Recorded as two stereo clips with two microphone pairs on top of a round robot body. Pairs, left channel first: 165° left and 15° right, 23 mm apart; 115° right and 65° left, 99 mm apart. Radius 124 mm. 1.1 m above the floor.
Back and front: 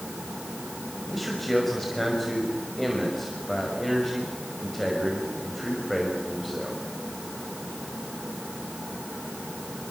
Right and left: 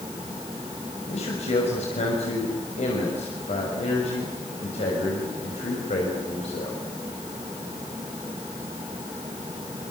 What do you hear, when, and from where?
1.1 s a man speaking: 105° right, 5.5 m